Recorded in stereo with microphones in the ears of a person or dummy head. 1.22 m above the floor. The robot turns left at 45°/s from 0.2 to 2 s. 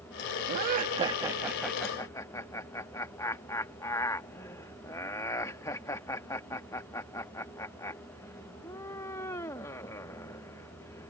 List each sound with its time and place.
0.5 s laughter: 50° right (ahead or behind); by 11.1 s 20° left (ahead or behind)